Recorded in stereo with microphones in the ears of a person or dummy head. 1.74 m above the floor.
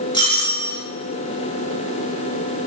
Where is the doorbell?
25° left (ahead or behind), 1.0 m.